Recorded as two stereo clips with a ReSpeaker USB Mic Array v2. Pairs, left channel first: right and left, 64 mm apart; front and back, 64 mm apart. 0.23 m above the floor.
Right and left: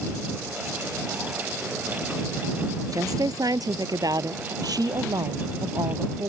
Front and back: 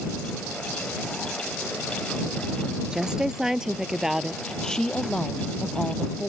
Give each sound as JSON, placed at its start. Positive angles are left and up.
{"t": 2.9, "sound": "a woman speaking", "azimuth_deg": 105}
{"t": 4.6, "sound": "a woman speaking", "azimuth_deg": 80}